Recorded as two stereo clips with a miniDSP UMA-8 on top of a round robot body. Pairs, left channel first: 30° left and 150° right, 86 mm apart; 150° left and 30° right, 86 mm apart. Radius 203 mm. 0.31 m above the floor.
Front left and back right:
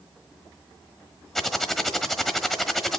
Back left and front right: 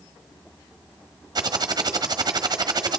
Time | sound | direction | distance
1.4 | typing on a keyboard | 60° right | 1.2 m